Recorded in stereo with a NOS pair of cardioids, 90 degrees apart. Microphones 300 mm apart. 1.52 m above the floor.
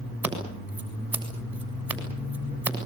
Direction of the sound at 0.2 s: 5° right.